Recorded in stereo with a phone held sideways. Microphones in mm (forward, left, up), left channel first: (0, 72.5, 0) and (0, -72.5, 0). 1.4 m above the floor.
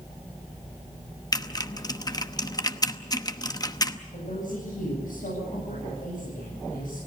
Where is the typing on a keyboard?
30° left (ahead or behind), 0.9 m.